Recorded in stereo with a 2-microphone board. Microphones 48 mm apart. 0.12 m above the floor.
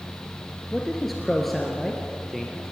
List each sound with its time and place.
0.7 s a man speaking: 5° left (ahead or behind), 1.9 m